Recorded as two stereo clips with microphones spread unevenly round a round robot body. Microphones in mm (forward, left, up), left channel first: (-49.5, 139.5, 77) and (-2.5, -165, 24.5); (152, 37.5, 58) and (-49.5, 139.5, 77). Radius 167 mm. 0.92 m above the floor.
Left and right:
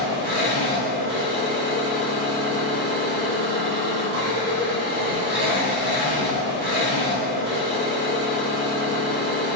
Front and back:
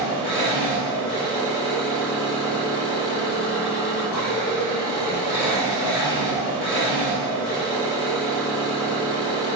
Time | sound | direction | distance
0.0 | an engine running | 20° right | 1.3 m